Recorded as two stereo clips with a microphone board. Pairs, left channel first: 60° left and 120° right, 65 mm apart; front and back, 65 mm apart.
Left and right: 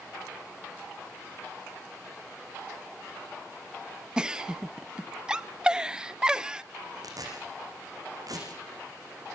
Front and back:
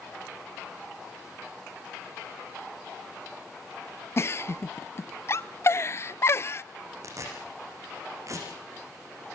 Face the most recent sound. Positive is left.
turn(degrees=-140)